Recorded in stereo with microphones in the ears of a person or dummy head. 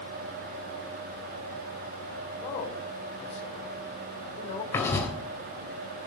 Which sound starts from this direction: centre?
Writing, at 4.7 s.